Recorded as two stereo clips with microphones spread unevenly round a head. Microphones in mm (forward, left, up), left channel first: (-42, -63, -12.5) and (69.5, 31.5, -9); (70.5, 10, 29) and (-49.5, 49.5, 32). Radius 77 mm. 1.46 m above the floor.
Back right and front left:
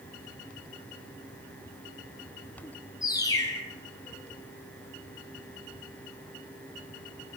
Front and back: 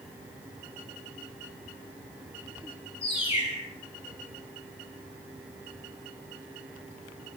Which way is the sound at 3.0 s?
75° right.